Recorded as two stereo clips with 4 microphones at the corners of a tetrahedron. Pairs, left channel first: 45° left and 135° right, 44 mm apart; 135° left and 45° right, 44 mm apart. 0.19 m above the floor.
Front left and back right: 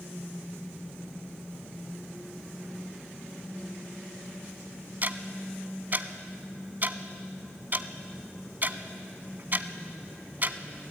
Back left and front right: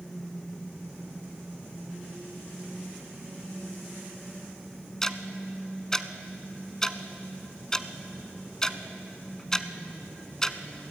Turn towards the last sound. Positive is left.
turn(degrees=-155)